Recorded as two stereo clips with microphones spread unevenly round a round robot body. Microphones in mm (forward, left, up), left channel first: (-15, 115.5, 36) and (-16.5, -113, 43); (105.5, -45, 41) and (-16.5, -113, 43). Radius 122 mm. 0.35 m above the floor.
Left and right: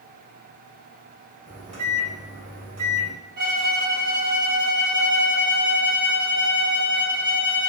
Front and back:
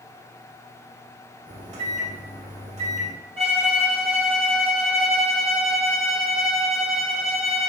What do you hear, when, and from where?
1.5 s a microwave: 140° right, 1.4 m
3.4 s a violin: 125° right, 1.8 m